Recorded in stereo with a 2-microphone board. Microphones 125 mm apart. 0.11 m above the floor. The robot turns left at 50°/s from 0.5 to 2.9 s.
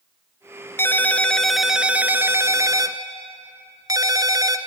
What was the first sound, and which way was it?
A ringtone, 40° left.